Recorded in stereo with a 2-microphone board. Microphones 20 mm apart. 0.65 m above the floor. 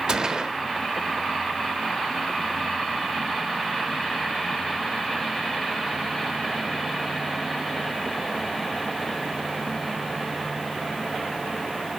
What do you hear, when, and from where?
0.1 s a gunshot: 45° right (ahead or behind), 0.8 m